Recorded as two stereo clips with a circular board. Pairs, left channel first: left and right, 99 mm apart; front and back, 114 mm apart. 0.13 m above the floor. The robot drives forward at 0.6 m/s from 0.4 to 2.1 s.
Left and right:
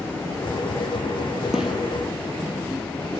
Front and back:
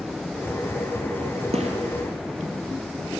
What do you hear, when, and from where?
1.5 s a gunshot: 175° right, 1.3 m